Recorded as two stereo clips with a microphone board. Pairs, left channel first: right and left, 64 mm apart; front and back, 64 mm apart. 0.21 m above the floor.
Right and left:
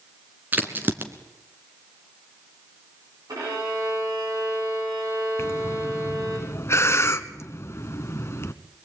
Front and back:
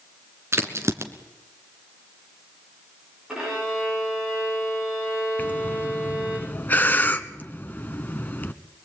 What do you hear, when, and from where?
0.5 s a crack: 140° left, 2 m
3.3 s a violin: 100° left, 9 m
5.4 s breathing: 55° right, 1.2 m